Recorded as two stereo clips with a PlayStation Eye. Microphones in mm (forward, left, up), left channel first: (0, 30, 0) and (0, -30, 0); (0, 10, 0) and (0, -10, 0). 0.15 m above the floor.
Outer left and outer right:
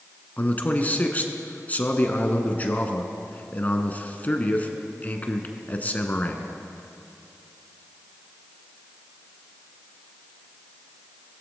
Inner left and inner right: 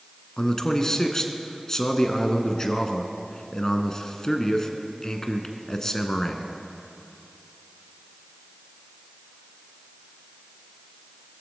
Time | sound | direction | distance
0.4 | a man speaking | 30° left (ahead or behind) | 1.3 m